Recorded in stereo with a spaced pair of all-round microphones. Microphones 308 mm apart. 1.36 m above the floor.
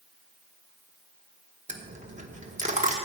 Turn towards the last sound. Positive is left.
turn(degrees=-25)  # may be behind; listen again after turning